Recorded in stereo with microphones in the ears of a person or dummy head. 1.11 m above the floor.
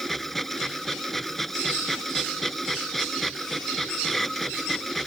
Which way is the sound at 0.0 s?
5° left (ahead or behind).